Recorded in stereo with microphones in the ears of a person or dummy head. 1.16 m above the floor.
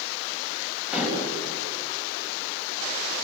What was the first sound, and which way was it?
Dishes clattering, 5° right (ahead or behind).